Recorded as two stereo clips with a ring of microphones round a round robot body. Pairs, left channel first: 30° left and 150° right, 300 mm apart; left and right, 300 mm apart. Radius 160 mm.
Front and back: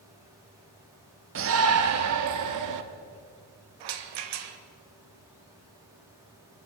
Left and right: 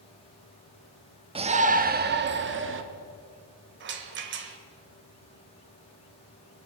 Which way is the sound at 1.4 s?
155° right.